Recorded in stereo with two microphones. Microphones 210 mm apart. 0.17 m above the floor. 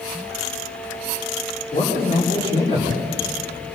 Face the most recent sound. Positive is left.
turn(degrees=25)  # may be behind; listen again after turning